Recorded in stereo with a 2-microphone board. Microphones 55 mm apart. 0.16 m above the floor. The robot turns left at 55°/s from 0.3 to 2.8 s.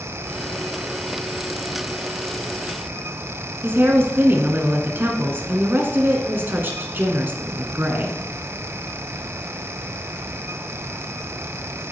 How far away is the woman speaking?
About 1.6 m.